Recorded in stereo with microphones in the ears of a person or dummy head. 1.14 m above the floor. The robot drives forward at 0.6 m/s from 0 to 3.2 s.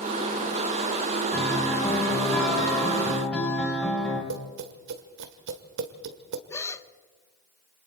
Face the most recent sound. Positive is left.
turn(degrees=10)  # may be behind; listen again after turning